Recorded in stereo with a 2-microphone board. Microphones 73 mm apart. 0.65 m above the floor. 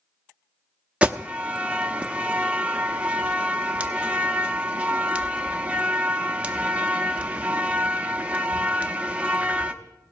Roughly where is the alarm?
Centre.